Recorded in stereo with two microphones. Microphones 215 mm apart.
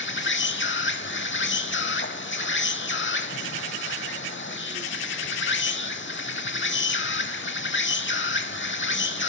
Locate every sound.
0.0 s an insect: 60° left (ahead or behind), 0.7 m